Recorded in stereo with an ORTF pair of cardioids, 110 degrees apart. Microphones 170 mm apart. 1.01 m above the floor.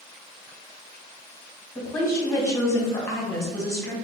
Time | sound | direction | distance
1.8 | a woman speaking | 15° left | 1.3 m